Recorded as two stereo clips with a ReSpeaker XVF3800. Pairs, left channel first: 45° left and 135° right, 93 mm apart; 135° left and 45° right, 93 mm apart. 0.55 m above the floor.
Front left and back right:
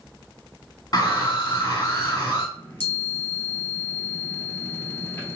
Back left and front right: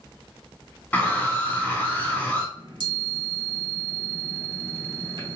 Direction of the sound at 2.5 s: 20° right.